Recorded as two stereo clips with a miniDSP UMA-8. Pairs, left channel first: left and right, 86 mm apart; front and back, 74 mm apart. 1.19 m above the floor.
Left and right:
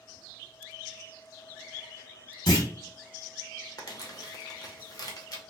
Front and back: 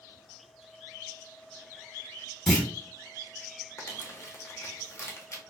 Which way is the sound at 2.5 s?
90° left.